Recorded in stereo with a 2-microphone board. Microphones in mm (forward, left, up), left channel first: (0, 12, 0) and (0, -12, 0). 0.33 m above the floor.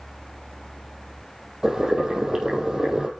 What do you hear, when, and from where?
1.6 s boiling: 30° right (ahead or behind), 4 m